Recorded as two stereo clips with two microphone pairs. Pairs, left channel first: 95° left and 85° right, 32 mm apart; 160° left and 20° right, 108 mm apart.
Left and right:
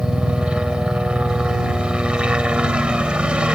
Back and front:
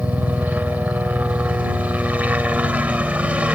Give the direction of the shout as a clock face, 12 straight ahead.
I don't hear a shout.